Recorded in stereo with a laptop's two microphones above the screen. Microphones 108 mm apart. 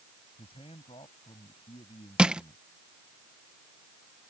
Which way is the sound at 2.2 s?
10° right (ahead or behind).